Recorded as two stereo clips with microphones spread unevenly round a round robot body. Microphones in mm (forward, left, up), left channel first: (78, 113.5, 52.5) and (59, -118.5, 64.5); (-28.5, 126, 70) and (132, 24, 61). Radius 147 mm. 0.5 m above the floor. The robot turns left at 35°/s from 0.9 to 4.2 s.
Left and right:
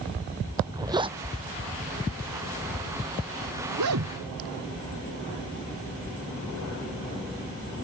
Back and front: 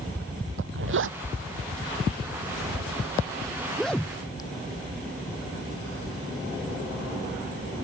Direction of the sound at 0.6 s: 20° right.